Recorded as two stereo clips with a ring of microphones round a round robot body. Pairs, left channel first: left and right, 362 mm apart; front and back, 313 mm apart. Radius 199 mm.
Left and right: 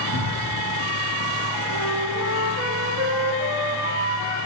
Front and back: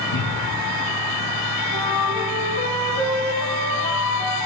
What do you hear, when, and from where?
0.1 s a cupboard door: 35° right, 4.5 m
1.7 s a flute: 60° right, 8 m